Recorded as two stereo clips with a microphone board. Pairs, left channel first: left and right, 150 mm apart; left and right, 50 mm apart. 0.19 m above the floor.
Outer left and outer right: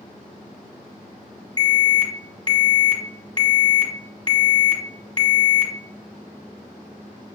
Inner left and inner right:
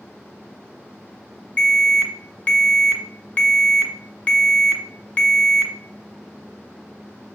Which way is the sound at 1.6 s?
30° left (ahead or behind).